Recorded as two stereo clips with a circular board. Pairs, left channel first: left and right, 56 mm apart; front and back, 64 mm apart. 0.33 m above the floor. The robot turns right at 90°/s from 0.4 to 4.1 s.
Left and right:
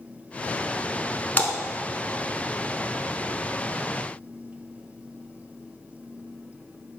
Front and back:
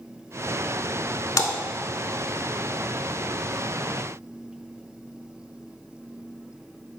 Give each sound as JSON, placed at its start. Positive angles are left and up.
{"t": 1.4, "sound": "a splash", "azimuth_deg": 30, "distance_m": 0.7}